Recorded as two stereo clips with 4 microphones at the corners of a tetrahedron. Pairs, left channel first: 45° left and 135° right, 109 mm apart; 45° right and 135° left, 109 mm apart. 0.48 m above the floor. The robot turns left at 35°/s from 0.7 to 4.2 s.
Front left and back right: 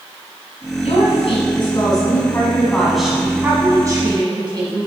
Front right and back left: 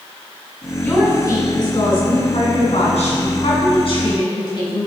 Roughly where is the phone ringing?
No phone ringing in this recording.